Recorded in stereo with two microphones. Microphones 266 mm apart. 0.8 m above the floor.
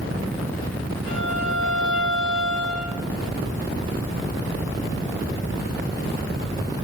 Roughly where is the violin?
Right.